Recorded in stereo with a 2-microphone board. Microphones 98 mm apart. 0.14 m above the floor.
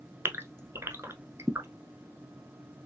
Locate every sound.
0.2 s a gasp: 25° right (ahead or behind), 0.6 m